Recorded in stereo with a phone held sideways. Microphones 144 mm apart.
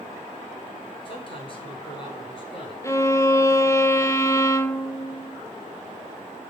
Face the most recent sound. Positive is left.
turn(degrees=20)  # may be behind; listen again after turning